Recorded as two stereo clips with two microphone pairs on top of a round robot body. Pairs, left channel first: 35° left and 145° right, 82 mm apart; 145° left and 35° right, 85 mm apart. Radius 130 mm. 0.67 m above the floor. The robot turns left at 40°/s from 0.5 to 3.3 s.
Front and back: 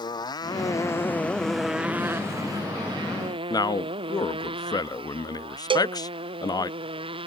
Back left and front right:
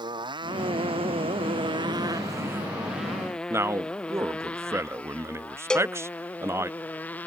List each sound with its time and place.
0.0 s a motorcycle: straight ahead; by 7.3 s 140° right
3.5 s a man speaking: 20° left
5.7 s a cowbell: 135° right